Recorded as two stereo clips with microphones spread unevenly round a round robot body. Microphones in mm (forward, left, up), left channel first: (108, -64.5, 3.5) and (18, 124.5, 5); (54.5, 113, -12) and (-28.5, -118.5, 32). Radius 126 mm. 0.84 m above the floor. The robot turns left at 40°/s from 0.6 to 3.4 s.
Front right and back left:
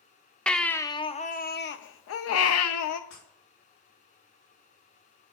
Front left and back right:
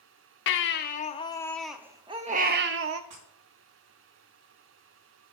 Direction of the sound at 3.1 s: 115° right.